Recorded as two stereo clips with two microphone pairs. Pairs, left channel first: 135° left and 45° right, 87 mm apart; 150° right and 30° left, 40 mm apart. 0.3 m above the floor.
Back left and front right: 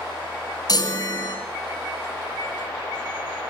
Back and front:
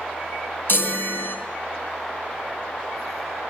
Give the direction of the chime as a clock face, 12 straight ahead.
6 o'clock.